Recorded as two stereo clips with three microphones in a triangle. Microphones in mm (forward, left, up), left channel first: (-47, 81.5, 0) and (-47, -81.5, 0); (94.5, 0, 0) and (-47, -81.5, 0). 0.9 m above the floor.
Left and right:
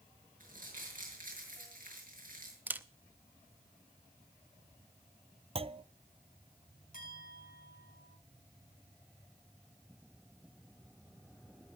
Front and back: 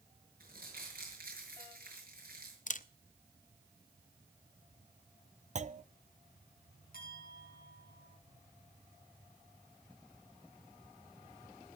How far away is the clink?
About 6.5 m.